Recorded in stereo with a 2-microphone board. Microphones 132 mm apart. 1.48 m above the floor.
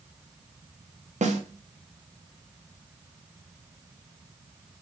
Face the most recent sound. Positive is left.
turn(degrees=-70)  # may be behind; listen again after turning